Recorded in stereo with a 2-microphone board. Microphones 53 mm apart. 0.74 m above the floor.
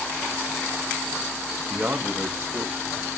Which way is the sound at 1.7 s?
30° right (ahead or behind).